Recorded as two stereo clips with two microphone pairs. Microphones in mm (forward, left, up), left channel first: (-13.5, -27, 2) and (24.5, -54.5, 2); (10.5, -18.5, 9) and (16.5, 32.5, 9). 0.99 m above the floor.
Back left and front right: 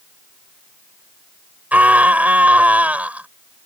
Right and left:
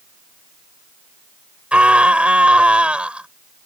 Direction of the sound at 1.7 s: 15° left.